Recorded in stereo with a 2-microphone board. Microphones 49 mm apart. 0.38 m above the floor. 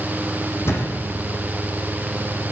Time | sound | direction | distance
0.7 | a thud | 60° left (ahead or behind) | 7 m